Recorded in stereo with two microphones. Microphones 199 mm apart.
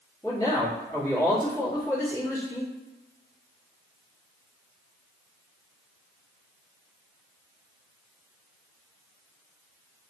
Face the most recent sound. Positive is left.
turn(degrees=15)  # may be behind; listen again after turning